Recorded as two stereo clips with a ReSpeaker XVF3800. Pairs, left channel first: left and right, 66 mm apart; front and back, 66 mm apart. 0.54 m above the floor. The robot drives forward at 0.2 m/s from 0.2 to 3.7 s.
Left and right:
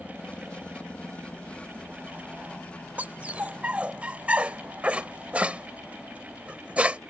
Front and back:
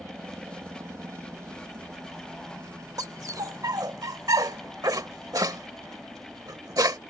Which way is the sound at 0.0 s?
155° left.